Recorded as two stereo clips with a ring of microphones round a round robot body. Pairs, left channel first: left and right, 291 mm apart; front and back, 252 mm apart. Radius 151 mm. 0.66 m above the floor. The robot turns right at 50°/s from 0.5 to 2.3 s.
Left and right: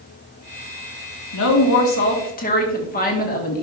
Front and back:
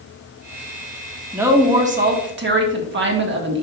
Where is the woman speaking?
95° left, 1.8 m; by 3.6 s 145° left, 1.8 m.